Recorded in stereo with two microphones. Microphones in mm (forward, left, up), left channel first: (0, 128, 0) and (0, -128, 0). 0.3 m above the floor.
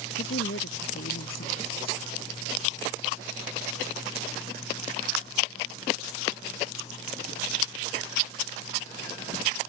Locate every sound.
0.2 s a woman speaking: 55° left (ahead or behind)